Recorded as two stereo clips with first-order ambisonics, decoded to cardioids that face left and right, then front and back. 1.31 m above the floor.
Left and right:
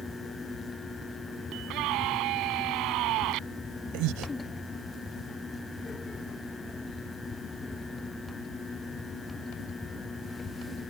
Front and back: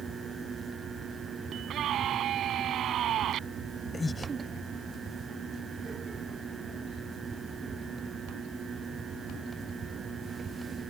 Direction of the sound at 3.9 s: 75° right.